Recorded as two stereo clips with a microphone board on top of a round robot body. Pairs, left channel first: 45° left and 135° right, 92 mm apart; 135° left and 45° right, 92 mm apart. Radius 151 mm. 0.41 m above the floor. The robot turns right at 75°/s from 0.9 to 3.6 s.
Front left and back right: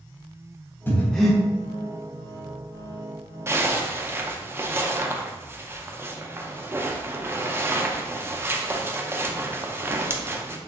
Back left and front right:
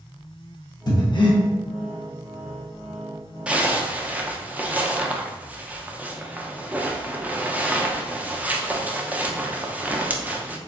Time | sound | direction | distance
0.9 | breathing | 110° left | 0.8 m
3.5 | a zipper | 110° right | 0.6 m